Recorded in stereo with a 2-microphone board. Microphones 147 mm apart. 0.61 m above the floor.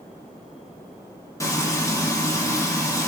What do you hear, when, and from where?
1.4 s frying: 20° left (ahead or behind), 0.9 m